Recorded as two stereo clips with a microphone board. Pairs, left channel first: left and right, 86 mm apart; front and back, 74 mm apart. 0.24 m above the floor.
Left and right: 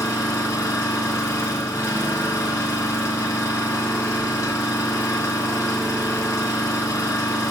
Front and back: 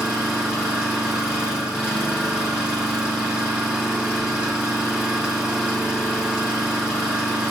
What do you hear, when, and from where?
0.0 s an engine running: 105° left, 1.4 m